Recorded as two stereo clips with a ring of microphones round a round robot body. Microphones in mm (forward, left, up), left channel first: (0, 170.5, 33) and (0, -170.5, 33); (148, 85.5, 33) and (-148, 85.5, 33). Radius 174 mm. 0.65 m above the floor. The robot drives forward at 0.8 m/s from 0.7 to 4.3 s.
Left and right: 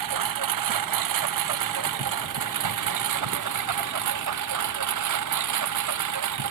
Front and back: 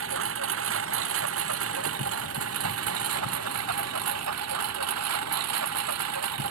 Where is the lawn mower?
125° right; by 6.5 s 130° right.